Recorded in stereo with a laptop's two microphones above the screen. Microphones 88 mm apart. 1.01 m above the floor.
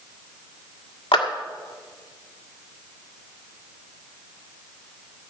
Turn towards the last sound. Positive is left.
turn(degrees=90)